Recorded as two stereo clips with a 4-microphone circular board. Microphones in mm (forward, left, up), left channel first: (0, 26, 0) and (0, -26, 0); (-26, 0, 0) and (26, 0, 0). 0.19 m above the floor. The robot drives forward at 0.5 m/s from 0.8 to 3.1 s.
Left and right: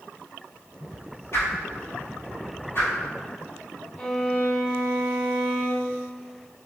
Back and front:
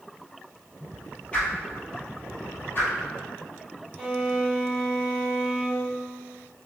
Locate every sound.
1.3 s a whoosh: 110° left, 1.7 m; by 2.9 s 130° left, 2 m
4.0 s a violin: 70° left, 0.8 m